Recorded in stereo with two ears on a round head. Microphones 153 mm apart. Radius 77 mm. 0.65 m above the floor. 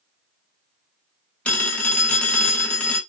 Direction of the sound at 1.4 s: 10° left (ahead or behind).